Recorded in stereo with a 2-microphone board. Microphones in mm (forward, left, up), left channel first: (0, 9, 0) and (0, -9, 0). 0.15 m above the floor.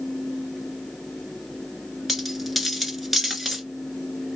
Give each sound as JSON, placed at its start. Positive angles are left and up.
{"t": 2.1, "sound": "a dropped coin", "side_deg": -5, "distance_m": 1.0}